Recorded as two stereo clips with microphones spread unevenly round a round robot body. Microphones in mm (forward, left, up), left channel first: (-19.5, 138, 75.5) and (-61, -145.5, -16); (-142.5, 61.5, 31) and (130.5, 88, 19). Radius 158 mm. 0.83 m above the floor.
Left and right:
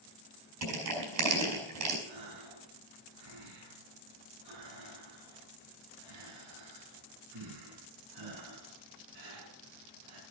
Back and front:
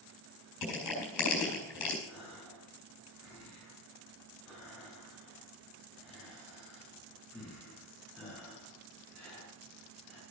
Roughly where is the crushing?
Behind right.